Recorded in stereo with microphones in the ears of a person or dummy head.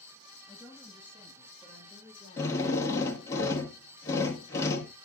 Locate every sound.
0.5 s a woman speaking: 5° left (ahead or behind), 7 m; by 3.2 s 15° left (ahead or behind), 4.5 m
2.4 s a drill: 15° left (ahead or behind), 1.8 m